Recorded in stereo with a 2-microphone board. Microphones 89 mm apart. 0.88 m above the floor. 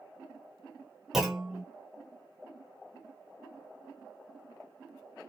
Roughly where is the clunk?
Centre.